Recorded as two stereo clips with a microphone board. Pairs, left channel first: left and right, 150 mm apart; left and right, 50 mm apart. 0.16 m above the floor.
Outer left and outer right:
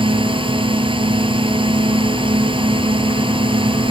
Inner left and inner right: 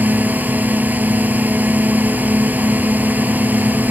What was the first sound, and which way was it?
A drone, 35° right (ahead or behind).